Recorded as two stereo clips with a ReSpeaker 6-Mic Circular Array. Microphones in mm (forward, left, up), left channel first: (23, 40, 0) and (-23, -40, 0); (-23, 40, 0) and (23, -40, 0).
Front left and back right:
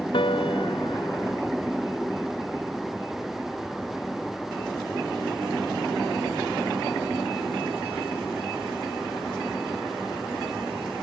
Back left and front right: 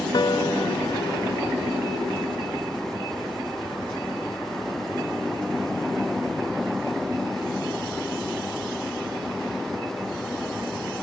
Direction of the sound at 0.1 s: 80° left.